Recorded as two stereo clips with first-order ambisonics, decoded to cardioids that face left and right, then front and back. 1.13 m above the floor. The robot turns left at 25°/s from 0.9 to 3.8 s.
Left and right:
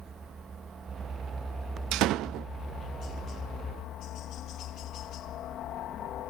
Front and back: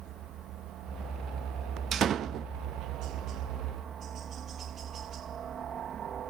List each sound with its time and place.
0.0 s a helicopter: 160° right; by 6.3 s 130° left
1.9 s a door slam: 120° right; by 2.5 s 135° right